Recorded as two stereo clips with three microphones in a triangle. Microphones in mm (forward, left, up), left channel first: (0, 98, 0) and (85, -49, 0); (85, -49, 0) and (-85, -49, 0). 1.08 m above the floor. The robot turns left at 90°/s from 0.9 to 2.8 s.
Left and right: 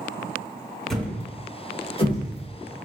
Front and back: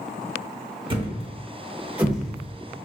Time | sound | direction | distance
0.9 | a thud | 155° right | 0.8 m